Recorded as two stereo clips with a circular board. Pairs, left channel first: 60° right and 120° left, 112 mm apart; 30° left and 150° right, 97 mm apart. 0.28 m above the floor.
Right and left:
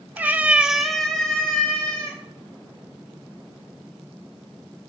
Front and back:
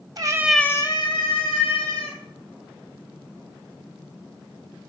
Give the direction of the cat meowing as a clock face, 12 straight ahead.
6 o'clock.